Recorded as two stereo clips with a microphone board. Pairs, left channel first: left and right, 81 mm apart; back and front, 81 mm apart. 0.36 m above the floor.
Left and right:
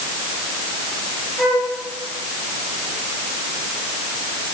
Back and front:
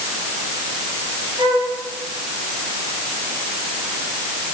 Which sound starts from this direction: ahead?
A flute, at 1.4 s.